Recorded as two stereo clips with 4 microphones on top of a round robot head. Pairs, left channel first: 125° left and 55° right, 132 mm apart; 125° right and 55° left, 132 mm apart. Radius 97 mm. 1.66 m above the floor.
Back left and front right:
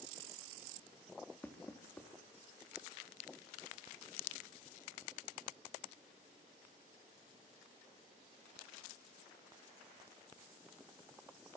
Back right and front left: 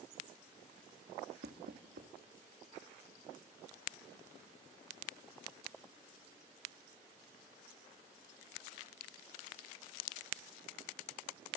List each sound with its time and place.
1.4 s knocking: 45° left, 3 m